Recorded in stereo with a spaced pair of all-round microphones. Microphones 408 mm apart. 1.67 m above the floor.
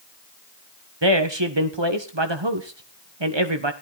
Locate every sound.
1.0 s a man speaking: 85° right, 1.6 m